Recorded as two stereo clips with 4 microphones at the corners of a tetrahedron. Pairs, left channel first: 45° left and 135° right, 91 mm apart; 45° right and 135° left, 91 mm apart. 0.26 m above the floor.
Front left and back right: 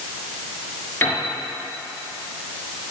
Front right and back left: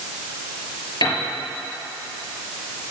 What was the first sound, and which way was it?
A piano, 20° right.